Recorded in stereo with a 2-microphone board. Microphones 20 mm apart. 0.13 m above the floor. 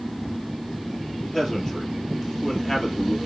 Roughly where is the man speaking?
Left.